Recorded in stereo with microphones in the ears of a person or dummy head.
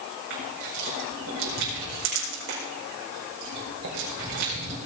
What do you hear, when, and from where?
0.3 s crushing: 70° right (ahead or behind), 5 m